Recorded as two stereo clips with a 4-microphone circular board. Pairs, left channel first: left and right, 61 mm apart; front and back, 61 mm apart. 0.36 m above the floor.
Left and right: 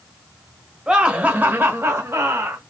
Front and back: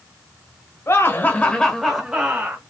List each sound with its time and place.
0.9 s laughter: 15° right, 1.2 m; by 2.6 s 125° right, 1.4 m